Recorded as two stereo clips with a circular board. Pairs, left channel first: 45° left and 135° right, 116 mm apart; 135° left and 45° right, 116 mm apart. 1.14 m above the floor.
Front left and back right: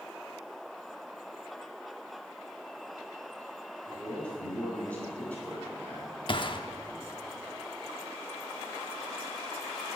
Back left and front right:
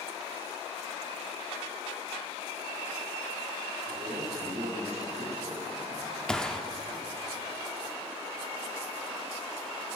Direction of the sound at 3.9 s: 35° right.